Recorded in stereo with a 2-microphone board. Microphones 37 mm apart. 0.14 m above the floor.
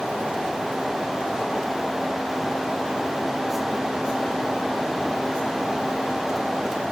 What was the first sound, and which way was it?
Only background noise.